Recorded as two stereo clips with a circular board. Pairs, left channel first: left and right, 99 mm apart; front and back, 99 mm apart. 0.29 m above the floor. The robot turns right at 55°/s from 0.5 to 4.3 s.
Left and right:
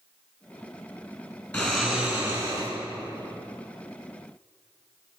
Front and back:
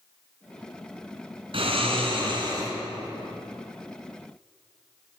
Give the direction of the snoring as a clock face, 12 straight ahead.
6 o'clock.